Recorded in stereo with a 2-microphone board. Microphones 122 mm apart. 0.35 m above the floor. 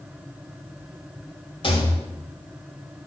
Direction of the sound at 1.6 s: 45° left (ahead or behind).